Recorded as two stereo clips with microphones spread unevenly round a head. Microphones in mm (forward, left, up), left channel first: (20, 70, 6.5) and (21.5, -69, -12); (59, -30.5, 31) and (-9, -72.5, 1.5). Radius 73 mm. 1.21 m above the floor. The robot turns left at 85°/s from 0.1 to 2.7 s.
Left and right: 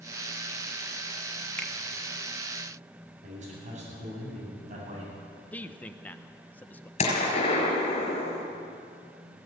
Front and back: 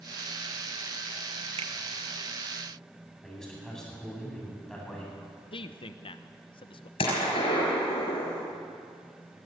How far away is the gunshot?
About 5.5 m.